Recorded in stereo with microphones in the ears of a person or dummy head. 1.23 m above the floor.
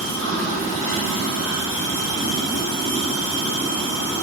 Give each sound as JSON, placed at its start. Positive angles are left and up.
{"t": 0.0, "sound": "running water", "side_deg": -65, "distance_m": 1.8}